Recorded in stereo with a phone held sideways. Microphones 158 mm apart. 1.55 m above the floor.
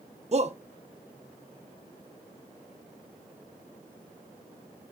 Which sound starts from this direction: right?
A shout, at 0.3 s.